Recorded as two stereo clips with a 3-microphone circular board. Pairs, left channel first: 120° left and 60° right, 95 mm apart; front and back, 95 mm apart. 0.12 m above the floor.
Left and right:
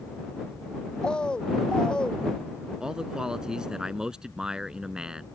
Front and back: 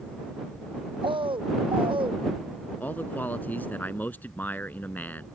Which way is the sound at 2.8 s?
5° left.